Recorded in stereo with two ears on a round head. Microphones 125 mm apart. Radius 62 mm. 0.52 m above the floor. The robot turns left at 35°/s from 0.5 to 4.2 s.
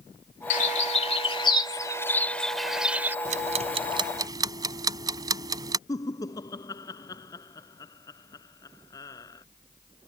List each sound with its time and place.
0.5 s a bird: 60° left (ahead or behind); by 3.1 s 15° right (ahead or behind)
3.2 s ticking: 60° right (ahead or behind); by 5.8 s 25° right (ahead or behind)
5.9 s laughter: 25° left (ahead or behind)